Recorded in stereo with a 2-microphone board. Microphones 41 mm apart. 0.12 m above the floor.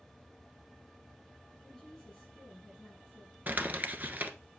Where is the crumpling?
45° right (ahead or behind), 1.1 m.